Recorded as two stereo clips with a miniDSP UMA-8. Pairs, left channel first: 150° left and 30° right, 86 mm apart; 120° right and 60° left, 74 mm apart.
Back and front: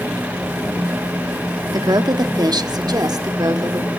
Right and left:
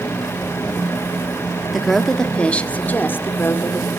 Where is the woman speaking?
25° right, 1.0 m; by 3.9 s 70° right, 1.7 m.